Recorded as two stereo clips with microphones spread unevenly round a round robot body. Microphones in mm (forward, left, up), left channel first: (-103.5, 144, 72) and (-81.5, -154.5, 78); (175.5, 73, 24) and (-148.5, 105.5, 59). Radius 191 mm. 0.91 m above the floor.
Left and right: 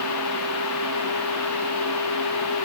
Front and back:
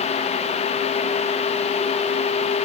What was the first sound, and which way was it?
Only background noise.